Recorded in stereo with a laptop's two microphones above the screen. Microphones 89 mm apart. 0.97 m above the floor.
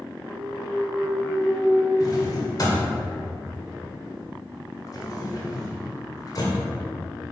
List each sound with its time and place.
0.3 s a clunk: 80° right, 2.5 m
2.0 s a drawer: 45° left (ahead or behind), 1.7 m